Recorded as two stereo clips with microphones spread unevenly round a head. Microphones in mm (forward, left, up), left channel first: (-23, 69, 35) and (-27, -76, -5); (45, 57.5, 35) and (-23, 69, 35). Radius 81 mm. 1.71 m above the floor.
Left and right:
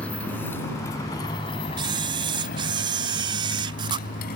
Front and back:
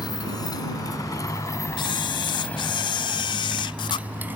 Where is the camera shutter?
25° right.